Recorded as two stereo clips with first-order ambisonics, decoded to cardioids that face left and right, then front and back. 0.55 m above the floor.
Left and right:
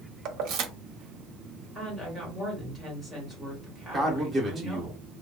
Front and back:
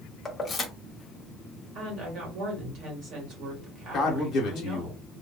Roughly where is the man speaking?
Ahead right.